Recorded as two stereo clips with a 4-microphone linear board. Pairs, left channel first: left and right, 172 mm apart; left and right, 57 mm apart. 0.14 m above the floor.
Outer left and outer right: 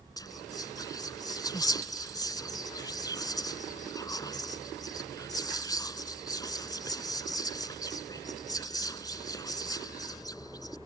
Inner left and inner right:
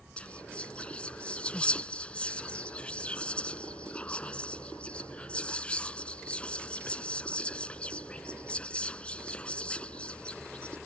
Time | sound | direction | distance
0.2 | whispering | 20° left (ahead or behind) | ?